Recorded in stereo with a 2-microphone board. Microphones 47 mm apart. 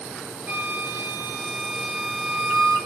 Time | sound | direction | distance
0.5 | a flute | 45° right (ahead or behind) | 1.5 m